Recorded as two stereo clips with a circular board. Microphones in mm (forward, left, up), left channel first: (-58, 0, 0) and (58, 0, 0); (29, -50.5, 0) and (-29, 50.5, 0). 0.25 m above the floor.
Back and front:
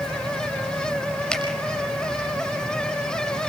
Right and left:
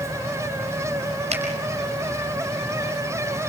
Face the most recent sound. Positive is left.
turn(degrees=95)